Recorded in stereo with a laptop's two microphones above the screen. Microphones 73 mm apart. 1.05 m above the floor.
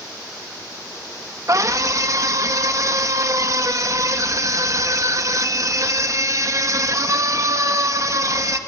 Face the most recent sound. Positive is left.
turn(degrees=-50)  # may be behind; listen again after turning